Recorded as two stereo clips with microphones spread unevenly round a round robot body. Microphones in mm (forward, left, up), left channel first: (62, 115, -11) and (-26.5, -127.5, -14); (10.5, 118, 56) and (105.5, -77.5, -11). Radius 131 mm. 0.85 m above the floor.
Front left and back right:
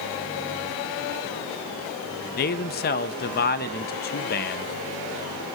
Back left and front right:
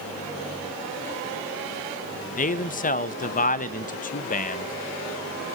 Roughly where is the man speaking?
Ahead left.